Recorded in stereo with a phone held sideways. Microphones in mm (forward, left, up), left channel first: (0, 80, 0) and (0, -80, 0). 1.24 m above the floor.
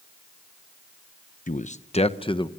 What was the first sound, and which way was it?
A man speaking, 55° left (ahead or behind).